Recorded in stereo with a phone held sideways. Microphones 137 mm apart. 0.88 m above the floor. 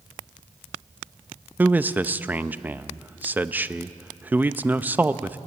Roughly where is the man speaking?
Centre.